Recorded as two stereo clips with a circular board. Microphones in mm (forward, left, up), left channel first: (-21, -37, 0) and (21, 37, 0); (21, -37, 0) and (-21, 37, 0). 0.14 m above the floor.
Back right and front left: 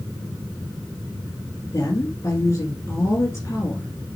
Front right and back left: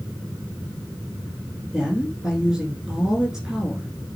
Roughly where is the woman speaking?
Behind.